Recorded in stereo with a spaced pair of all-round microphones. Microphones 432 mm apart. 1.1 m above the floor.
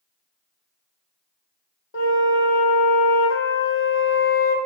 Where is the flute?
30° left (ahead or behind), 0.5 m.